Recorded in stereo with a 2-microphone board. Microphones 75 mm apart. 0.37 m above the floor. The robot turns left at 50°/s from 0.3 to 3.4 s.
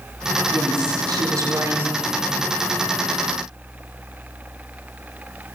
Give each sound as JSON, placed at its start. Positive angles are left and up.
{"t": 0.5, "sound": "a woman speaking", "azimuth_deg": -80, "distance_m": 3.0}